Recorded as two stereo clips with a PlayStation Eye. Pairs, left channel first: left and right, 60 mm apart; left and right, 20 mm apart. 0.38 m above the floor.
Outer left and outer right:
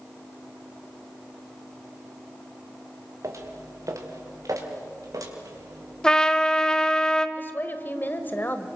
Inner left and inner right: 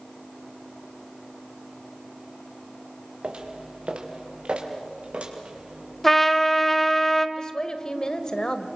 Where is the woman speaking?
35° left (ahead or behind), 1.4 m.